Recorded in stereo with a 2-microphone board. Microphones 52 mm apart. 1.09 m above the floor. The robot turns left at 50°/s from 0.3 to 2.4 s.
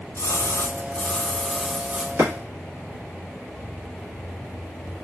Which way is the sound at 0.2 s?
55° left.